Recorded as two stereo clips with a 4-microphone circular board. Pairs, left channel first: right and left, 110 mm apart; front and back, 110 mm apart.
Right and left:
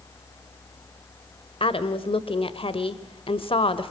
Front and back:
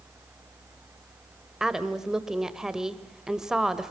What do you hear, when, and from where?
1.6 s a woman speaking: 95° right, 1.5 m